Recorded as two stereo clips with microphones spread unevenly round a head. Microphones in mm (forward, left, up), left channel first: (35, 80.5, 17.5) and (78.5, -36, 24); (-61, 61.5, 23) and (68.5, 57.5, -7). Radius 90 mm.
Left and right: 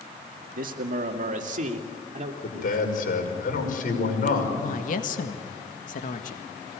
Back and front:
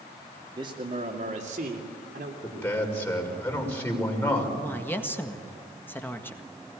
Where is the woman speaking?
100° left, 1.8 m.